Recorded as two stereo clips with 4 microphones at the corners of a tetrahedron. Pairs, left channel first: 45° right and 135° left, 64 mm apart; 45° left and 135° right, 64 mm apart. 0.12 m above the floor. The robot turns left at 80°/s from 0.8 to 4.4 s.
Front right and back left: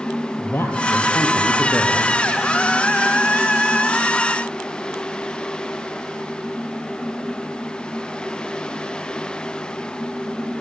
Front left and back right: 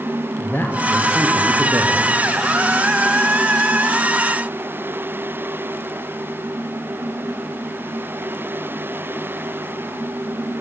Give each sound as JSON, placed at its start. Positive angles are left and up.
{"t": 0.4, "sound": "a man speaking", "azimuth_deg": -10, "distance_m": 3.0}